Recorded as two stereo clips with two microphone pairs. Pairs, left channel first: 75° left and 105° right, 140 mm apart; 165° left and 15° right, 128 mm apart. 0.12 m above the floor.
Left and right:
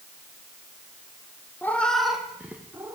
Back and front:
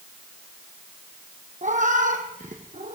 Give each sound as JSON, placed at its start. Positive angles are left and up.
{"t": 1.6, "sound": "a cat meowing", "azimuth_deg": 0, "distance_m": 1.5}